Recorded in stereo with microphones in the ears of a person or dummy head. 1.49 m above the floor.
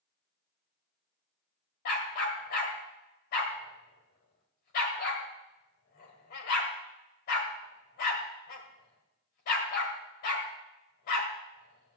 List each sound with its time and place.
1.9 s a dog barking: 55° left (ahead or behind), 1.9 m